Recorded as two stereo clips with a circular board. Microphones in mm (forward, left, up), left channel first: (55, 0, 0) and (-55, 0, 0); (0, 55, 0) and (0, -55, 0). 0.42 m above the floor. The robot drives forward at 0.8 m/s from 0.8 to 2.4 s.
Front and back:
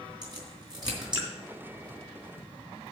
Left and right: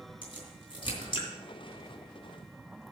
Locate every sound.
0.2 s a crack: 130° left, 3.5 m; by 1.3 s 135° left, 3.5 m